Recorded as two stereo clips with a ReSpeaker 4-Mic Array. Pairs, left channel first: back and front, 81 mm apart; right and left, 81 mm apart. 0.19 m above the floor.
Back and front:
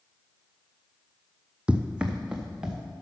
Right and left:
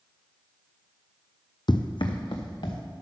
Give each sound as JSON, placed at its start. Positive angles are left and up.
{"t": 1.7, "sound": "running footsteps", "azimuth_deg": -75, "distance_m": 0.5}